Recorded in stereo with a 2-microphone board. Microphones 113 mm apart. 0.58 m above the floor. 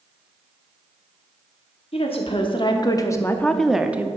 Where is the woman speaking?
55° left (ahead or behind), 1.1 m; by 4.1 s 15° right (ahead or behind), 0.7 m.